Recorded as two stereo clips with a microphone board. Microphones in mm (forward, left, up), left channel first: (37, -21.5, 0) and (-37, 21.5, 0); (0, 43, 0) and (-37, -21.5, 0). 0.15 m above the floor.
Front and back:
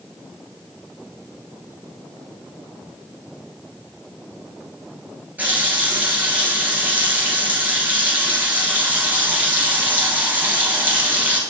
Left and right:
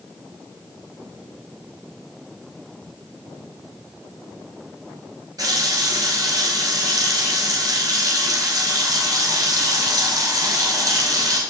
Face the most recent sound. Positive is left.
turn(degrees=-140)